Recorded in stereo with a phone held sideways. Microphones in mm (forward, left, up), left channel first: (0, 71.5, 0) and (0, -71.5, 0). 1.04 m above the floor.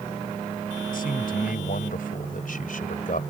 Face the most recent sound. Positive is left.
turn(degrees=70)  # may be behind; listen again after turning